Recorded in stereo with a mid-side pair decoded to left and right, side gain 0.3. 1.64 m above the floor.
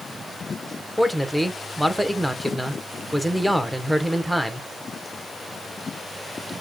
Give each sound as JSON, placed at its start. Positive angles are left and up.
{"t": 1.0, "sound": "a man speaking", "azimuth_deg": -5, "distance_m": 1.1}